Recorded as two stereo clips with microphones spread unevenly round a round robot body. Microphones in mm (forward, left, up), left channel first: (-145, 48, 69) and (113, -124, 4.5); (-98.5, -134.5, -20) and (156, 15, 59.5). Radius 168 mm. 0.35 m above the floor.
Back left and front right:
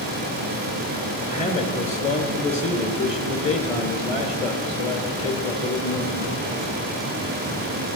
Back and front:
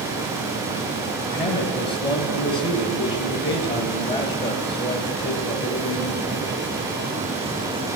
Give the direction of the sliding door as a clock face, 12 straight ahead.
No sliding door in this recording.